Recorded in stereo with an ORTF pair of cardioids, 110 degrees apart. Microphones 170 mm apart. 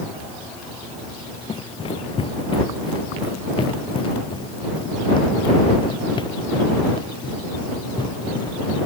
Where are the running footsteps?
35° left; by 8.9 s 30° left.